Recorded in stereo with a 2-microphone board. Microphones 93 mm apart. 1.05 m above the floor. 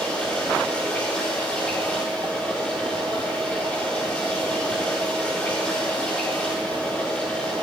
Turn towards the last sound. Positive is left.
turn(degrees=15)  # may be behind; listen again after turning